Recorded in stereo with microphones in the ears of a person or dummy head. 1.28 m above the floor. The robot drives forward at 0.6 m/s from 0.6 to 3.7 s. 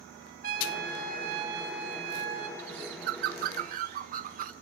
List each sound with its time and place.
0.4 s a trumpet: 50° right (ahead or behind), 5.5 m; by 2.5 s 60° right (ahead or behind), 4.5 m
2.6 s a bird: 75° right (ahead or behind), 1.2 m; by 4.5 s 50° right (ahead or behind), 1.5 m